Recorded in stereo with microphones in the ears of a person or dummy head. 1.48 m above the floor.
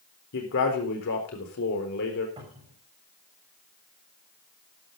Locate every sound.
0.3 s a man speaking: 70° left (ahead or behind), 4 m
2.4 s a cupboard door: 20° right (ahead or behind), 7.5 m